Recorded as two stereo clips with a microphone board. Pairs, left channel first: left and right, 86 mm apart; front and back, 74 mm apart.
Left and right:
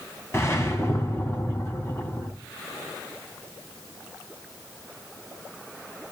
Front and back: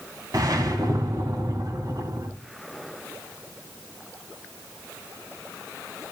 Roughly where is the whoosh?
Behind left.